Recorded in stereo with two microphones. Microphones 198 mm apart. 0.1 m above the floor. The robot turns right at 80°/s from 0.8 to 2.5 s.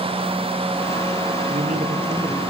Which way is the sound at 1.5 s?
85° right.